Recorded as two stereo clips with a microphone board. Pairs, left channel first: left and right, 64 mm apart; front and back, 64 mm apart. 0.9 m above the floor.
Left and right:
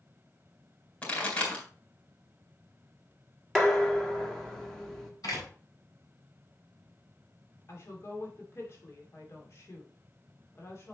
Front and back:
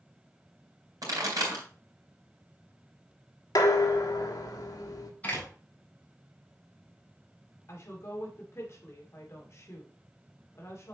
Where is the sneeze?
No sneeze in this recording.